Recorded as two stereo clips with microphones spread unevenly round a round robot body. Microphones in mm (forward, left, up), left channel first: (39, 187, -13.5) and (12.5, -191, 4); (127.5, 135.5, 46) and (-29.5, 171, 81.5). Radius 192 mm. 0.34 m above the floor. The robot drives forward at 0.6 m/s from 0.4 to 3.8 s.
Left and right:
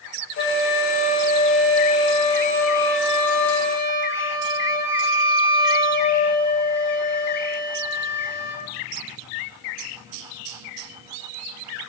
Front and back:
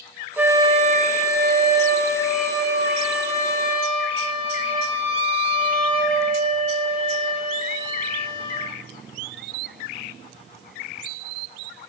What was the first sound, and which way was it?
A flute, 70° left.